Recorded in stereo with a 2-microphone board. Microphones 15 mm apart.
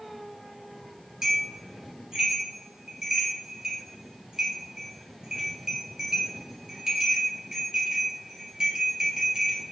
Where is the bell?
50° right (ahead or behind), 3 m.